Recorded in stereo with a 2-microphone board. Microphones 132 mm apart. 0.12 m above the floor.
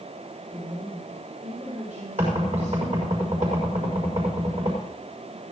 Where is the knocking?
70° right (ahead or behind), 5.5 m.